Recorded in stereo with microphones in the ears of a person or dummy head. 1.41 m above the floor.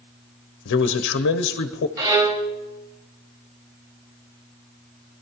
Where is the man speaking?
60° left (ahead or behind), 0.7 m.